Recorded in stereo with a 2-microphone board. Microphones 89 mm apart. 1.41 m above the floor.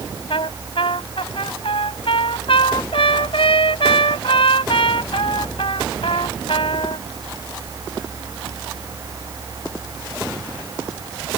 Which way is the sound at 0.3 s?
85° left.